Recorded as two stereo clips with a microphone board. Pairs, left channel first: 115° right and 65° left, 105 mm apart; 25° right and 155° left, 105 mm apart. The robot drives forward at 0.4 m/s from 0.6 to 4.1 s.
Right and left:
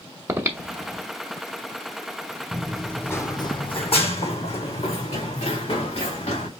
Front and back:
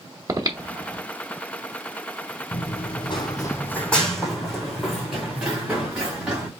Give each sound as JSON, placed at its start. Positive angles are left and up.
{"t": 0.3, "sound": "breathing", "azimuth_deg": 120, "distance_m": 1.1}
{"t": 2.5, "sound": "running footsteps", "azimuth_deg": -10, "distance_m": 1.2}